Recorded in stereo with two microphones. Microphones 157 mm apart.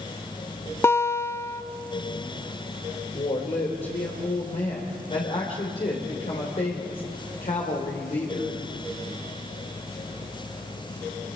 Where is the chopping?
No chopping in this recording.